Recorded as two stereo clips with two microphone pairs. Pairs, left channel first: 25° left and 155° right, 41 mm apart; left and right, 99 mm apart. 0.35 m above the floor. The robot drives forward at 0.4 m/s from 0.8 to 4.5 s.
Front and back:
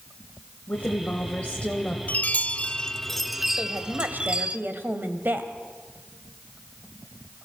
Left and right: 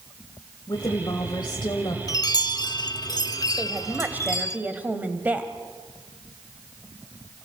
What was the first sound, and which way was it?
A woman speaking, 65° left.